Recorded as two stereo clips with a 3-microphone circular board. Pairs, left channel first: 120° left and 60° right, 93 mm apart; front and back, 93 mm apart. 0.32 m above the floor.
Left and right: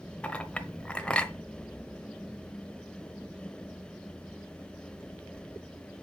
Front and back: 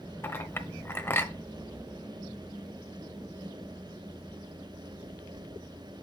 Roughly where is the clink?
Ahead left.